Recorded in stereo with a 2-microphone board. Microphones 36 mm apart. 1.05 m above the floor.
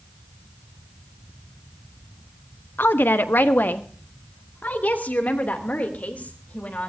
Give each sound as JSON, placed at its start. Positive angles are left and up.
{"t": 2.8, "sound": "a woman speaking", "side_deg": 75, "distance_m": 1.0}